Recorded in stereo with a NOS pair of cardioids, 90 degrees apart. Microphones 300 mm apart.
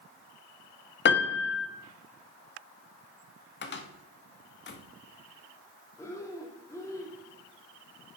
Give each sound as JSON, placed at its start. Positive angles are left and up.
{"t": 1.1, "sound": "a piano", "azimuth_deg": 40, "distance_m": 1.4}
{"t": 3.6, "sound": "a cupboard door", "azimuth_deg": 35, "distance_m": 1.7}
{"t": 6.0, "sound": "breathing", "azimuth_deg": 10, "distance_m": 2.5}